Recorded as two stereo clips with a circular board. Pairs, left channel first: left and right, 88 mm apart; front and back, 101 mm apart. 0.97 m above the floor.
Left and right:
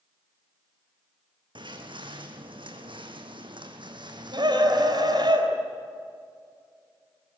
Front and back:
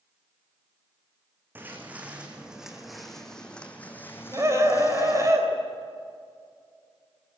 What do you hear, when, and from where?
1.6 s footsteps: 110° right, 2.5 m; by 5.3 s 50° right, 2.5 m
4.3 s a scream: 120° right, 3.5 m